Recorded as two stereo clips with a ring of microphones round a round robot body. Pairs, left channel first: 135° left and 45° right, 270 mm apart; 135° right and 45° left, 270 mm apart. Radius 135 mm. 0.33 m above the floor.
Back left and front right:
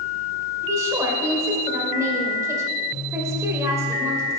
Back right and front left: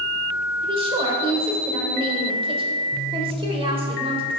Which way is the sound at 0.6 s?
15° left.